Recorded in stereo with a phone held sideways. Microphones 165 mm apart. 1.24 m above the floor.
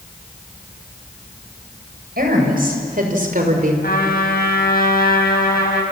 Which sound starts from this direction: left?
A trumpet, at 3.8 s.